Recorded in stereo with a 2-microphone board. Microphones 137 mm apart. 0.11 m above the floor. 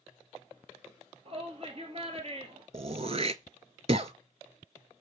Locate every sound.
1.2 s a shout: 45° right (ahead or behind), 2 m
2.7 s throat clearing: 50° right (ahead or behind), 0.5 m